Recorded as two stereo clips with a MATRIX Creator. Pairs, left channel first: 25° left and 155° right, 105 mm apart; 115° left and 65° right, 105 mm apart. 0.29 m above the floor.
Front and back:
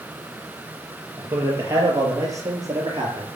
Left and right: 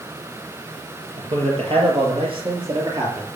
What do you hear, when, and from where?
1.2 s a man speaking: 90° right, 6 m; by 3.3 s 110° right, 5 m